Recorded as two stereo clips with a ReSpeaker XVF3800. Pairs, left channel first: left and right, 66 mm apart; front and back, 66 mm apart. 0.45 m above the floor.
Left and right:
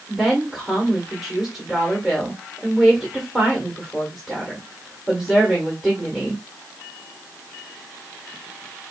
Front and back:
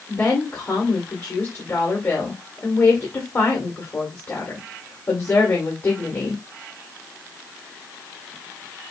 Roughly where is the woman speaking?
Ahead.